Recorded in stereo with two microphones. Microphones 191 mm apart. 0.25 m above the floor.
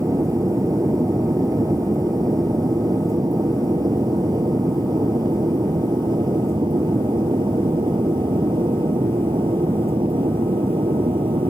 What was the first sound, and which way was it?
An aircraft, 15° right (ahead or behind).